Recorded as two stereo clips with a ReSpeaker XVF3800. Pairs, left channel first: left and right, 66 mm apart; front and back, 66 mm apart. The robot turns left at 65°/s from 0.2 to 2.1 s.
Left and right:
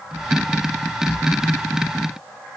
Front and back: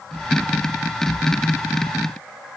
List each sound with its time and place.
Only background noise.